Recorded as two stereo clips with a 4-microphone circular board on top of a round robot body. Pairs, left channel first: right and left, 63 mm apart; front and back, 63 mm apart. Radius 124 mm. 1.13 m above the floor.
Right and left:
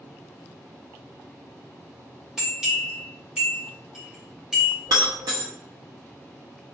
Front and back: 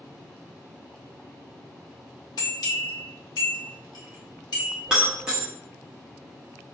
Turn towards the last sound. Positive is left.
turn(degrees=105)